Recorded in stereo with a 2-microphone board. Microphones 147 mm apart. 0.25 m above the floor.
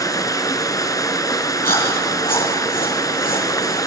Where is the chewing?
65° left (ahead or behind), 7 m.